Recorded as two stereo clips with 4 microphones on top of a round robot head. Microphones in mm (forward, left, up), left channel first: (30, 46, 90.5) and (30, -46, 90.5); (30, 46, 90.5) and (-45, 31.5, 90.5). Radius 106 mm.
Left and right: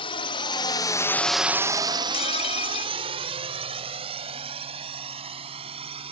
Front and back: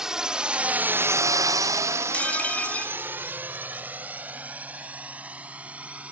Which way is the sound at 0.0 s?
105° left.